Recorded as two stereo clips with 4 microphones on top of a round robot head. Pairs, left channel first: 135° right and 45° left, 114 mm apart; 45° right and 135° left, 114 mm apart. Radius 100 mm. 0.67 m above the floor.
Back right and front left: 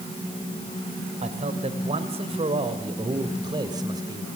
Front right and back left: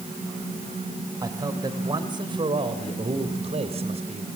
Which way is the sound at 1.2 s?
75° left.